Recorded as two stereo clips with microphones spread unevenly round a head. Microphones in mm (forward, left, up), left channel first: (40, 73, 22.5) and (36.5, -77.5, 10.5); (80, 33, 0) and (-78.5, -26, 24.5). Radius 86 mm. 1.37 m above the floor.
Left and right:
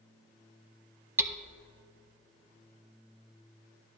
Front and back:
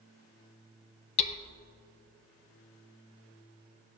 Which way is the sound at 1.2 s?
20° right.